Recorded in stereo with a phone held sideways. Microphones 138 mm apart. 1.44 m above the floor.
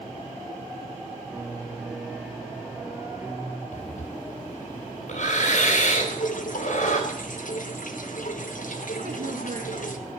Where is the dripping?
75° left (ahead or behind), 1.2 m.